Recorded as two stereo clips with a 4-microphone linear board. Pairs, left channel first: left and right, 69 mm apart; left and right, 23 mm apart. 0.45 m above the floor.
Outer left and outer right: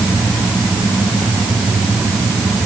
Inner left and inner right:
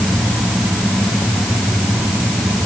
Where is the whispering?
No whispering in this recording.